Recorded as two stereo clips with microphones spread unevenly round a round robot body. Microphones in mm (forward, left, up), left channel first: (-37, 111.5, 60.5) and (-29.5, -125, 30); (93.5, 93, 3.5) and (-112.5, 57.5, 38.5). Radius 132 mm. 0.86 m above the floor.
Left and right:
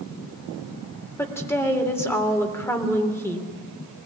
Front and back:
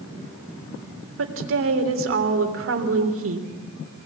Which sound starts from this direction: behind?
A woman speaking, at 1.2 s.